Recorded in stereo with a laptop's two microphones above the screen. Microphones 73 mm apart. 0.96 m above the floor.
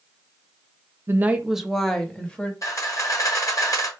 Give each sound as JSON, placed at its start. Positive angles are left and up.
{"t": 1.1, "sound": "a woman speaking", "side_deg": -35, "distance_m": 0.6}
{"t": 2.6, "sound": "a camera shutter", "side_deg": 45, "distance_m": 1.3}